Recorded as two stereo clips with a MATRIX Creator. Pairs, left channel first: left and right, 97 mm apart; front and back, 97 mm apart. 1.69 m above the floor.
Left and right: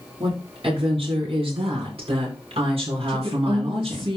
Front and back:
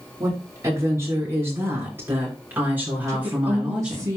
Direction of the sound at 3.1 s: 125° right.